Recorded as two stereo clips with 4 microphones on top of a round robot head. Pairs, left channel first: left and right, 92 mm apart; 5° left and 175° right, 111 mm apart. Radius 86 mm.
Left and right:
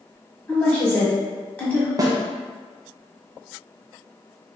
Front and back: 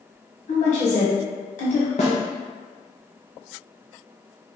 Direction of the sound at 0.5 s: 15° left.